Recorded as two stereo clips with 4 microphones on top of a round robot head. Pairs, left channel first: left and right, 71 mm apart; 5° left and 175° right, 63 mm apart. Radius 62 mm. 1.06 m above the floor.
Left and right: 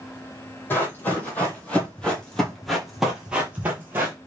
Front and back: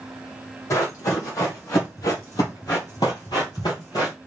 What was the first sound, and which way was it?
Running footsteps, 35° left.